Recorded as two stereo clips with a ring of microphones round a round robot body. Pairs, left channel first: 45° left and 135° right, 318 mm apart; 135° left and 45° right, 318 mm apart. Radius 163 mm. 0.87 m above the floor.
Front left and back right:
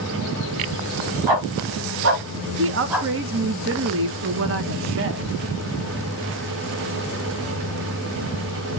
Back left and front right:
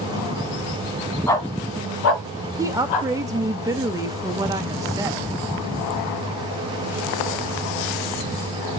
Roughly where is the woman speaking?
Behind right.